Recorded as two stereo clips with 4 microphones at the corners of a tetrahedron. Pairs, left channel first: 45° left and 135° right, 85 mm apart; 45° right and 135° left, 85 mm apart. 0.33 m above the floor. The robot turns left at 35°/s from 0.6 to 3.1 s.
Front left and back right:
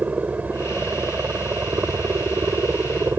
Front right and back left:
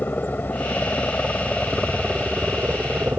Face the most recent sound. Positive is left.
turn(degrees=-175)